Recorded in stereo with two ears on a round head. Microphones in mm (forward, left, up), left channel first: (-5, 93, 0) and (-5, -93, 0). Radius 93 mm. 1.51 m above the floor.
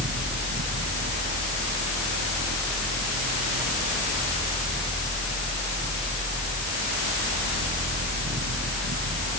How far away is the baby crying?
No baby crying in this recording.